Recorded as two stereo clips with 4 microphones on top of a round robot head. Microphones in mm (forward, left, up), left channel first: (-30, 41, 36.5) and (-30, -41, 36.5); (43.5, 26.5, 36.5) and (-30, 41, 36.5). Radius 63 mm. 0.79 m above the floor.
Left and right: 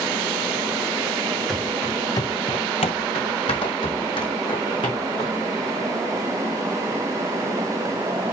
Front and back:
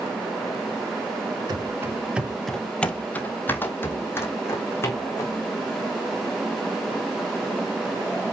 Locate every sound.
1.5 s running footsteps: 170° left, 1.0 m; by 5.4 s 45° left, 3.5 m